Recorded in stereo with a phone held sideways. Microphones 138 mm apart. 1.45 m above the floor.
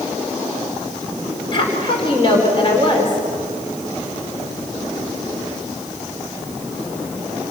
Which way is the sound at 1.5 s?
40° left (ahead or behind).